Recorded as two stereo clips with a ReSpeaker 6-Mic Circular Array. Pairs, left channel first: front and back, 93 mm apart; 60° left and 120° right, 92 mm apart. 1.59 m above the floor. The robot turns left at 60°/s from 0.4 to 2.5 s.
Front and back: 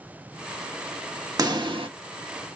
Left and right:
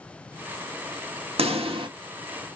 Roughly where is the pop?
Behind right.